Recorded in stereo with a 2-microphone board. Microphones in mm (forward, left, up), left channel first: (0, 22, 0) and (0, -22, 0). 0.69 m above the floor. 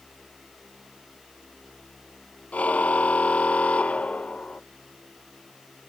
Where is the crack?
No crack in this recording.